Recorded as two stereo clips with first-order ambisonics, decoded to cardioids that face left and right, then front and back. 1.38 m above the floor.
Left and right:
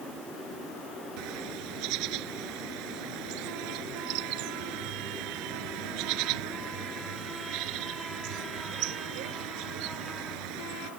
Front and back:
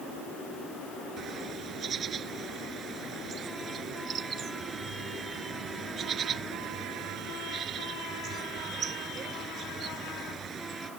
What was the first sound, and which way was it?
A bird, 120° right.